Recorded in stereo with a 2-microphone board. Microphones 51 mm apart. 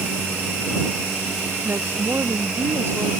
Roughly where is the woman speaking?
Right.